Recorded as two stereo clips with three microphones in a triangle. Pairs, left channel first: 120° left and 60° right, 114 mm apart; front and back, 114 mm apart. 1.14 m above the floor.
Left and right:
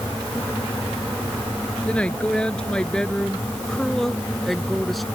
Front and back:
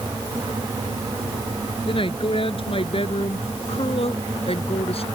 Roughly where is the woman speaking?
Ahead left.